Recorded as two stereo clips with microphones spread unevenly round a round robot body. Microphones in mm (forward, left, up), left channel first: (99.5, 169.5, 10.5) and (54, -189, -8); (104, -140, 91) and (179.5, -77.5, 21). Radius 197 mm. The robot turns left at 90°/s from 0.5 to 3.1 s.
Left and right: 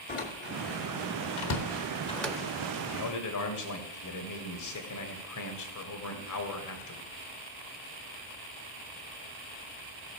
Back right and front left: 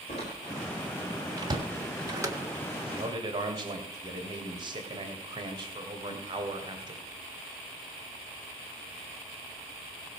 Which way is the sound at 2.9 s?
65° left.